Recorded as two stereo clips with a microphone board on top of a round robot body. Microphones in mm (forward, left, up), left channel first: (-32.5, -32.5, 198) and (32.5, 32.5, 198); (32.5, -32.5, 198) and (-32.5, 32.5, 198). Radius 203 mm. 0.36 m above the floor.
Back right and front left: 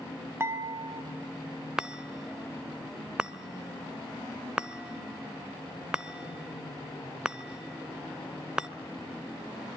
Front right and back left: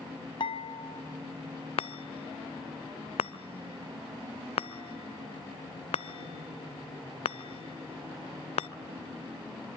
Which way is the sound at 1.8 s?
35° right.